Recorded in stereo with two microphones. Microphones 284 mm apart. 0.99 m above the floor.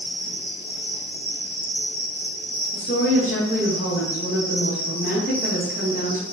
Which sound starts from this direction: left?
A woman speaking, at 2.7 s.